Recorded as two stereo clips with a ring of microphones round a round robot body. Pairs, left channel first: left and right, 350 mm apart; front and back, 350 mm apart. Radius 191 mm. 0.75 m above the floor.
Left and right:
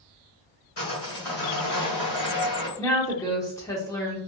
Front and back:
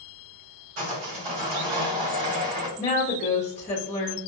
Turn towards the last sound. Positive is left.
turn(degrees=25)